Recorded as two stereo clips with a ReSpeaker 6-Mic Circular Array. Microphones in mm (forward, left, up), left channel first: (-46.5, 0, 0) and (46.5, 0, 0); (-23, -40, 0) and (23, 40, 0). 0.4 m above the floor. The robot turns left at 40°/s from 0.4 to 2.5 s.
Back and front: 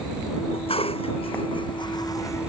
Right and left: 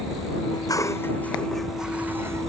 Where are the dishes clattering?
165° right; by 2.5 s 115° left.